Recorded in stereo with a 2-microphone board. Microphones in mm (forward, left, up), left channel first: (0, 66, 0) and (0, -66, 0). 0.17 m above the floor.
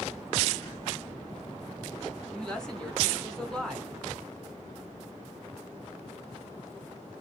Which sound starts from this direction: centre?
A woman speaking, at 2.3 s.